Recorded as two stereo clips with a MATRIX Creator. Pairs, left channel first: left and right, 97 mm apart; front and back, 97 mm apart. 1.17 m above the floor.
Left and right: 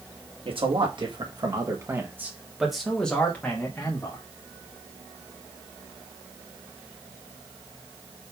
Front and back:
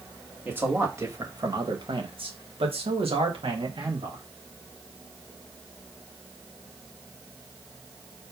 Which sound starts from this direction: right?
A man speaking, at 0.5 s.